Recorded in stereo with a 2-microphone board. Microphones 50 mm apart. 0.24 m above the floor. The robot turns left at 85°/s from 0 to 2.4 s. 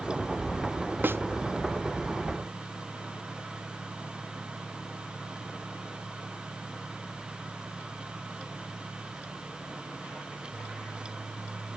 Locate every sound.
1.0 s a snare drum: 40° right (ahead or behind); by 1.2 s 55° right (ahead or behind)